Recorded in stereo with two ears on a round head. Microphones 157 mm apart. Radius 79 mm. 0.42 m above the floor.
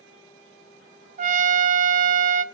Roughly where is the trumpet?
Right.